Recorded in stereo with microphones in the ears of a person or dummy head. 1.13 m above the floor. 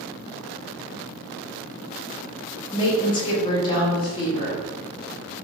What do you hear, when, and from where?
2.7 s a woman speaking: 20° left (ahead or behind), 0.6 m